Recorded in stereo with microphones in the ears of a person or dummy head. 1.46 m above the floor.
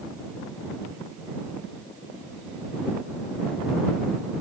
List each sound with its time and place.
Only background noise.